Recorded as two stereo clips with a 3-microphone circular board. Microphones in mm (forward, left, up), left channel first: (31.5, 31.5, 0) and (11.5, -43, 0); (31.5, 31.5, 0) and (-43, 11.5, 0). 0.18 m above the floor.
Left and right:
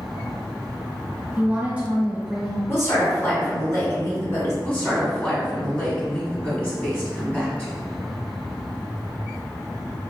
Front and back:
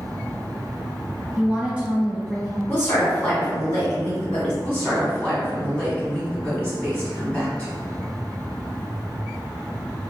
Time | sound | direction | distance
1.4 | a woman speaking | 130° right | 1.0 m
2.7 | a woman speaking | 70° left | 1.8 m
4.6 | a woman speaking | 50° left | 1.6 m